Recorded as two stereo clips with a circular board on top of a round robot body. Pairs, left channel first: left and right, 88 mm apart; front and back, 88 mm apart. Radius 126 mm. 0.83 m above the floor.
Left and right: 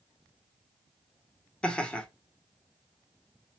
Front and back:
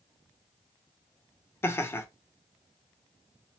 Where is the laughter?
25° left, 0.7 m.